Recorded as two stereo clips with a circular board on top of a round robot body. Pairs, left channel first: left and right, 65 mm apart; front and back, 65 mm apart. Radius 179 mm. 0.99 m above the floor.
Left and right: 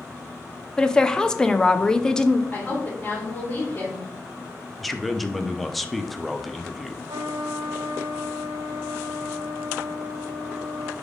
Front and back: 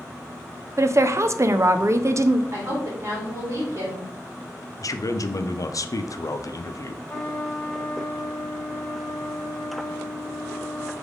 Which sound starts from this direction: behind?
A woman speaking, at 0.8 s.